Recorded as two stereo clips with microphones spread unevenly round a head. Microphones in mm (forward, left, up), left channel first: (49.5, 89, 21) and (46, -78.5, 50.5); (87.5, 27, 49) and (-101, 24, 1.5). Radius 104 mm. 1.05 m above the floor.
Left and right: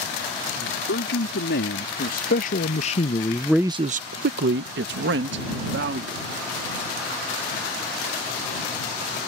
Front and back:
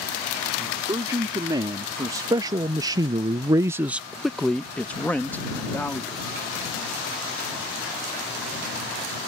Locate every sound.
0.6 s a man speaking: 110° left; by 6.2 s 80° right